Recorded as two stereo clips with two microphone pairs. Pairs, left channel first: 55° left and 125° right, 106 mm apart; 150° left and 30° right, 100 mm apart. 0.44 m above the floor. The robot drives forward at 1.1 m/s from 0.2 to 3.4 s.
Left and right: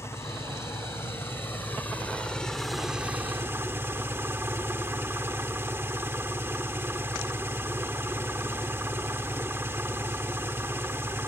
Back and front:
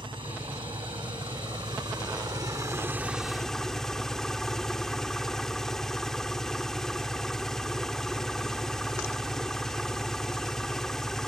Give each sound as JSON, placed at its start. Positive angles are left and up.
{"t": 0.0, "sound": "an engine running", "azimuth_deg": -5}